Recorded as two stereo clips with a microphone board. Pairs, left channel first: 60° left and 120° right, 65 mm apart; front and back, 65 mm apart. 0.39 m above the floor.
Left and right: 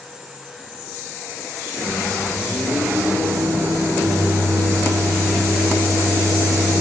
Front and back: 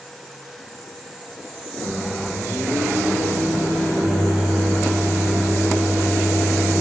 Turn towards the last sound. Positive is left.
turn(degrees=-90)